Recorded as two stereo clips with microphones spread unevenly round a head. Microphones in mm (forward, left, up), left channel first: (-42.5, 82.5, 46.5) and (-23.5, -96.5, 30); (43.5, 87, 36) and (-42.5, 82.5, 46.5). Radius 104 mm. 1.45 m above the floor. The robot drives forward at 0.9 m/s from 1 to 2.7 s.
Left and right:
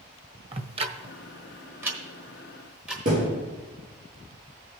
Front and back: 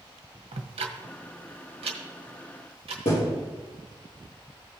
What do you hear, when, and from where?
0.5 s ticking: 145° right, 0.7 m; by 3.0 s 170° right, 2 m
3.0 s a thud: 35° right, 4 m